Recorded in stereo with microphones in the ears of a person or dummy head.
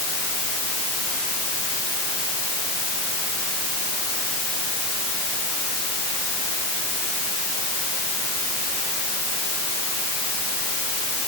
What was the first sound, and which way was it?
Only background noise.